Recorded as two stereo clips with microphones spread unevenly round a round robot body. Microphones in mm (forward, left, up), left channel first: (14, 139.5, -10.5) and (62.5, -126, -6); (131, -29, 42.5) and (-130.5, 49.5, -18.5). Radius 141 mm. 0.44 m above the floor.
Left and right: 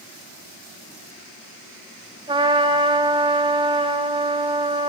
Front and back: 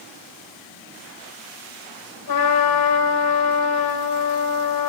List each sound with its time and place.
2.3 s a trumpet: 10° right, 3 m